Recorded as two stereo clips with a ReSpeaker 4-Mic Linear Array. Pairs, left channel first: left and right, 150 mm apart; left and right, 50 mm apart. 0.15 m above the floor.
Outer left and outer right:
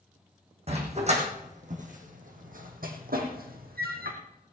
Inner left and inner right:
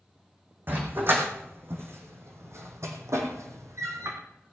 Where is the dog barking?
45° right (ahead or behind), 3.5 m; by 4.2 s 80° right, 2.5 m.